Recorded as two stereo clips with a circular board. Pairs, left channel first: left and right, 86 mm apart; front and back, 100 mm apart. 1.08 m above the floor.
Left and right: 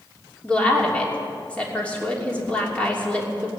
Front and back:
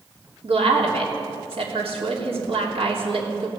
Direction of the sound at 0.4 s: 165° left.